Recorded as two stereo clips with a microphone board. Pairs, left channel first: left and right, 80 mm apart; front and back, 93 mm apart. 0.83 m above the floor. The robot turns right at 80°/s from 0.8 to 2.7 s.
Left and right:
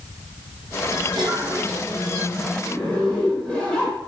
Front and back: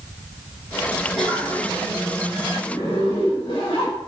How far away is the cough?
About 4 m.